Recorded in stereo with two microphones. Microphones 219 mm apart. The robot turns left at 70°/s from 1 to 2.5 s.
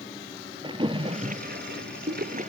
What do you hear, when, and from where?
0.6 s a splash: 25° right (ahead or behind), 1.0 m; by 2.5 s 30° right (ahead or behind), 1.0 m